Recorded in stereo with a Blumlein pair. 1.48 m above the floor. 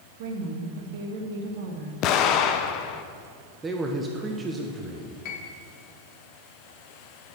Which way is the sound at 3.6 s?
15° right.